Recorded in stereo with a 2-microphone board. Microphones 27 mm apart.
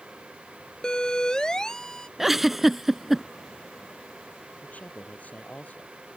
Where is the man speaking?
65° left (ahead or behind).